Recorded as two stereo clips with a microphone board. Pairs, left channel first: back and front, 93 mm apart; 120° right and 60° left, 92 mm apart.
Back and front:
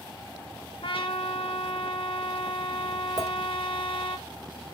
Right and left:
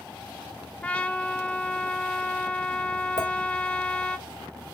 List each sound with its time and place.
0.8 s a trumpet: 165° left, 0.8 m
3.2 s a clink: 40° left, 1.5 m